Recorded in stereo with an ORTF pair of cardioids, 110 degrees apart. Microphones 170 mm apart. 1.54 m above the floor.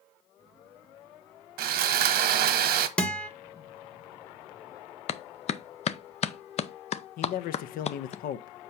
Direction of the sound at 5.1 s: 40° left.